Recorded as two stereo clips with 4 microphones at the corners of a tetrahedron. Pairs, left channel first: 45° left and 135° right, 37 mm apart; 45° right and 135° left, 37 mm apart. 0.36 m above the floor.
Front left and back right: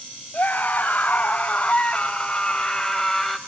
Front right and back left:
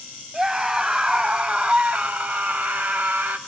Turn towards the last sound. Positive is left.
turn(degrees=130)